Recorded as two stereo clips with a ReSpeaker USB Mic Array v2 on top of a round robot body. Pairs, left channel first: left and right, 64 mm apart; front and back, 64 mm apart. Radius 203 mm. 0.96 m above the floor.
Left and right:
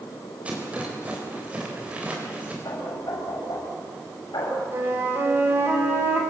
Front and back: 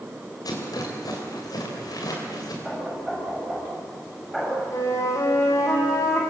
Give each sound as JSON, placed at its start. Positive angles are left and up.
{"t": 0.5, "sound": "a rattle", "azimuth_deg": -20, "distance_m": 3.5}
{"t": 2.6, "sound": "knocking", "azimuth_deg": 85, "distance_m": 6.0}
{"t": 4.7, "sound": "a flute", "azimuth_deg": -35, "distance_m": 3.0}